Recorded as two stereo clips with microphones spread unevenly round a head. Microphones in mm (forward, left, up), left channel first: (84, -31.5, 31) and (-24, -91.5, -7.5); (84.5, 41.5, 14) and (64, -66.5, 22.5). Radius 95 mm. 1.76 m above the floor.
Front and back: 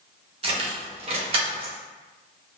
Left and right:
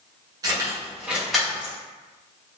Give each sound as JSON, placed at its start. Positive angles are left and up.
{"t": 0.4, "sound": "keys jangling", "azimuth_deg": -115, "distance_m": 0.9}